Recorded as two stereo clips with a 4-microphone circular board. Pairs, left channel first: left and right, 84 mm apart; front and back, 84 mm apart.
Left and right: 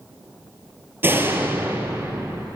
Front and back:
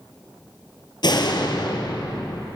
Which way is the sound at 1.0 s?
25° right.